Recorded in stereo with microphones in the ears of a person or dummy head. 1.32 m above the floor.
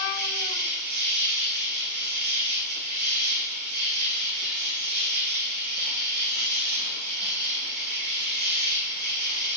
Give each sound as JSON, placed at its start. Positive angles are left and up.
{"t": 0.0, "sound": "an insect", "side_deg": -45, "distance_m": 7.5}